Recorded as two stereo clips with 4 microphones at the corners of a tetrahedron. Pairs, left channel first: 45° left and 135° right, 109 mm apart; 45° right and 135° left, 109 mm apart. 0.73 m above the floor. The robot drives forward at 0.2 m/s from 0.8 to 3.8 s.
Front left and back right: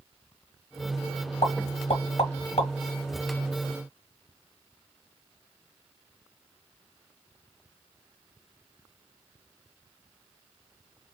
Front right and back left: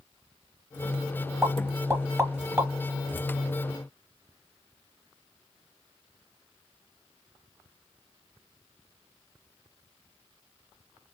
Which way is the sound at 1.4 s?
65° left.